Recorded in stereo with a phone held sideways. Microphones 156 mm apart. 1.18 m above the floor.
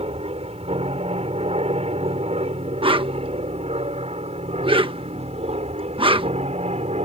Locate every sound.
0.0 s an aircraft: 40° right (ahead or behind); by 7.0 s 45° right (ahead or behind)
2.8 s a whoosh: 35° right (ahead or behind)